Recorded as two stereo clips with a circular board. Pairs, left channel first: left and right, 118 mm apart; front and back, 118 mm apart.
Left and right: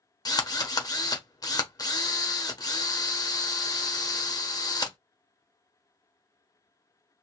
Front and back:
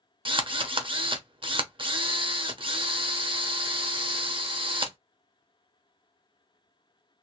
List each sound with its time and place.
0.2 s a drill: 145° left, 0.8 m